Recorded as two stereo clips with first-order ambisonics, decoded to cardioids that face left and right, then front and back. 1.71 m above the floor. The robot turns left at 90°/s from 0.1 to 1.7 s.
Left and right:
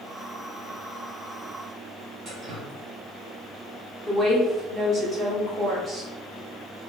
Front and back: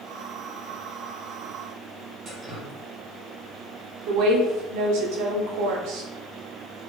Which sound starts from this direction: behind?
A woman speaking, at 4.1 s.